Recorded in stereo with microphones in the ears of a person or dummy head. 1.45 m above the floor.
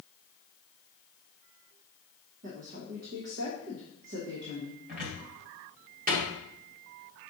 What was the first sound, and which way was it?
A woman speaking, 50° right (ahead or behind).